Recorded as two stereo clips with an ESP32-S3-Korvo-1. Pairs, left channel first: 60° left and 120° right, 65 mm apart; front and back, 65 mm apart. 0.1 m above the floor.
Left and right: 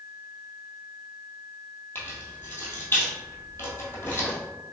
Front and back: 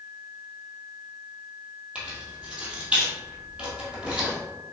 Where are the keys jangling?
110° left, 1.7 m.